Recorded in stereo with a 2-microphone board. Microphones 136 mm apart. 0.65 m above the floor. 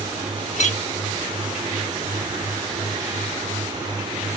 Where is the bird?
I don't hear a bird.